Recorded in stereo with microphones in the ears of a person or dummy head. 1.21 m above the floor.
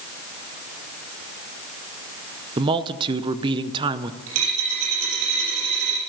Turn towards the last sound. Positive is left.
turn(degrees=-70)  # may be behind; listen again after turning